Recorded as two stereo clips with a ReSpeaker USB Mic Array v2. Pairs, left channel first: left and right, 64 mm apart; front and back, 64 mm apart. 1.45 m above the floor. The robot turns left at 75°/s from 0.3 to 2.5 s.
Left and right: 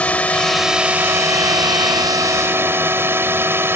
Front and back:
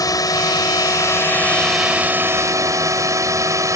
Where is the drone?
20° left; by 3.8 s 145° right.